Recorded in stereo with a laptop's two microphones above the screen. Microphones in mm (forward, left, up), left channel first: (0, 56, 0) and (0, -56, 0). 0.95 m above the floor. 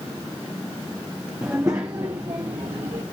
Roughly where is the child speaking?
Centre.